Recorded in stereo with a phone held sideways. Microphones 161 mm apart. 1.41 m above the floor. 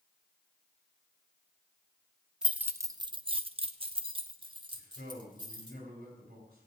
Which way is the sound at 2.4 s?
5° right (ahead or behind).